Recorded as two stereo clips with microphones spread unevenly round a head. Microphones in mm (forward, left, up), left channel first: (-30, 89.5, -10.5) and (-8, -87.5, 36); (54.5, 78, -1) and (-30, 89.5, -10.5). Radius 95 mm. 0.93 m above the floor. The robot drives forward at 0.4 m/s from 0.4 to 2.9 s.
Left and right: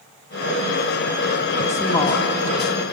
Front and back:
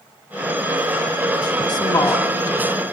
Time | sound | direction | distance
1.7 | a woman speaking | 30° left | 1.9 m